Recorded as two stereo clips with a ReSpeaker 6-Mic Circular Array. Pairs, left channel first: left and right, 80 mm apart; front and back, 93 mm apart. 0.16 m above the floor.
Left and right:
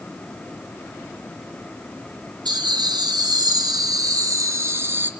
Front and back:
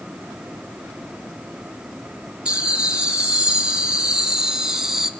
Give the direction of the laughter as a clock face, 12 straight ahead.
3 o'clock.